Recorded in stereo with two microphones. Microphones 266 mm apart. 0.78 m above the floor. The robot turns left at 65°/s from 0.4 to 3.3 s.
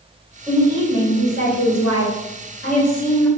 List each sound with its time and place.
0.5 s a woman speaking: 170° right, 1.6 m; by 3.3 s 5° left, 1.6 m